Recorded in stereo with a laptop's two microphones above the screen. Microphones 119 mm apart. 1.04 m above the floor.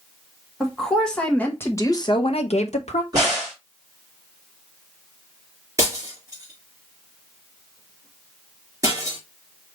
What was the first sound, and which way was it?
A woman speaking, centre (ahead or behind).